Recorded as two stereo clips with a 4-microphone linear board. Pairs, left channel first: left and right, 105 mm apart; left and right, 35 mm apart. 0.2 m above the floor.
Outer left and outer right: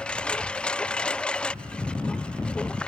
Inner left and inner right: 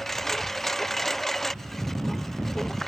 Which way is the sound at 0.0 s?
10° left (ahead or behind).